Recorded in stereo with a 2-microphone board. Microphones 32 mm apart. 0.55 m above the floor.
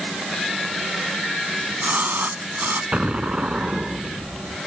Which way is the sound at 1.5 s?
85° right.